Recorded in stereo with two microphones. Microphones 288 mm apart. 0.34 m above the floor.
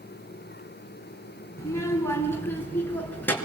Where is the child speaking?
10° left (ahead or behind), 3 m; by 3.3 s 5° left (ahead or behind), 4 m.